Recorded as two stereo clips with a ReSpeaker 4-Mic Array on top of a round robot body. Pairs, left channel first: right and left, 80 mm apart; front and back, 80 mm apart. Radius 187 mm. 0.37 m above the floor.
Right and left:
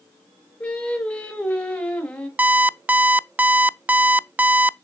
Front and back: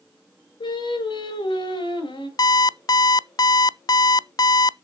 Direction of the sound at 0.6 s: 15° right.